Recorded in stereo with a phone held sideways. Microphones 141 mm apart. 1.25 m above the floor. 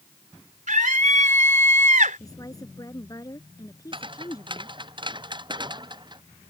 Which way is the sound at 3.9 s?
40° right (ahead or behind).